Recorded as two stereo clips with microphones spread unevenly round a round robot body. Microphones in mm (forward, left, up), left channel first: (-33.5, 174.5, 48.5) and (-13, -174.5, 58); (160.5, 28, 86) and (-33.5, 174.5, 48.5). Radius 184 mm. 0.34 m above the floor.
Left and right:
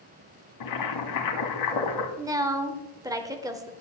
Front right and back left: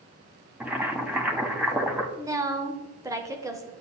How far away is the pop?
No pop in this recording.